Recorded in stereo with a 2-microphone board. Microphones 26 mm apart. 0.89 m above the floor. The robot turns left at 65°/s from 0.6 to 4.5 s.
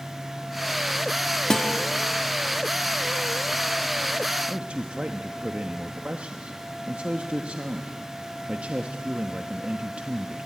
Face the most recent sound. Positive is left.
turn(degrees=-55)  # may be behind; listen again after turning